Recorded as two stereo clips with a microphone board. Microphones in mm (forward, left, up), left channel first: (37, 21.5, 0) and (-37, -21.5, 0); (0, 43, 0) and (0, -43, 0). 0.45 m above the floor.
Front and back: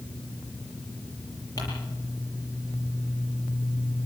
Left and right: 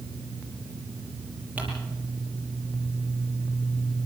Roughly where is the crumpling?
Ahead.